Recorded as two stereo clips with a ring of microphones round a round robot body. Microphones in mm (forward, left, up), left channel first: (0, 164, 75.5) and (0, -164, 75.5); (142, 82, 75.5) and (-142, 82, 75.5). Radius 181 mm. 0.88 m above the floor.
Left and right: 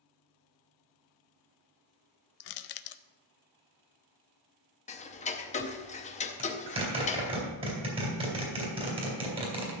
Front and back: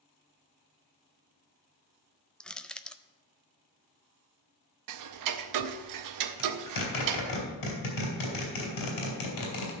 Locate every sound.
2.4 s crushing: 85° left, 0.6 m
4.9 s ticking: 160° left, 0.7 m
6.4 s a zipper: 15° right, 3 m